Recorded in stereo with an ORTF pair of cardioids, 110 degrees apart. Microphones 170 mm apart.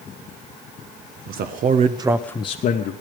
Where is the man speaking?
70° right, 1.5 m; by 2.9 s 65° left, 1.2 m.